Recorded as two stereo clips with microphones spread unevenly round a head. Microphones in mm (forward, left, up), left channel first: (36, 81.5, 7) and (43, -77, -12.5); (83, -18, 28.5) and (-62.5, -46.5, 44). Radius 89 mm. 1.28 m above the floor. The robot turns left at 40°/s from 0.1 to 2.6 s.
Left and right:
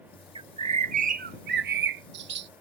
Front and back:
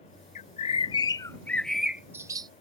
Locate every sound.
0.3 s a bird: 25° right; by 2.5 s 110° right